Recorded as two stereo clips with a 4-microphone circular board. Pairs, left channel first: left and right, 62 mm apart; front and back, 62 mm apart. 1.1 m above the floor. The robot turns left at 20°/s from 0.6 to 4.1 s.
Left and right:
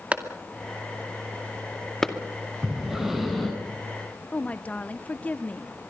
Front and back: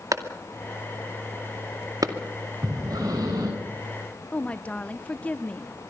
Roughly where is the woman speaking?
Ahead left.